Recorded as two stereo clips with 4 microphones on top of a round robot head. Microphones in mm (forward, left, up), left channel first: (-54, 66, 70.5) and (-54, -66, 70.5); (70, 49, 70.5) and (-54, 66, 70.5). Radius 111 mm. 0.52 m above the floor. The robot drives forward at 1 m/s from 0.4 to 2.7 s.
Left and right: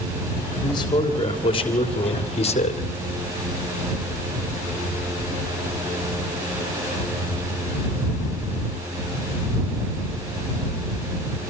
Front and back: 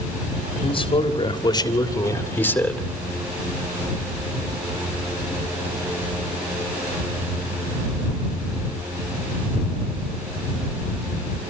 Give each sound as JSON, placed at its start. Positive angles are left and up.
{"t": 0.6, "sound": "a man speaking", "azimuth_deg": 30, "distance_m": 3.5}